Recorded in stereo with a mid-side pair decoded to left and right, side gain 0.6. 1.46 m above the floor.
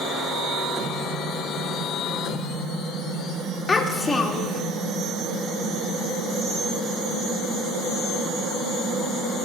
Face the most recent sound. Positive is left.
turn(degrees=20)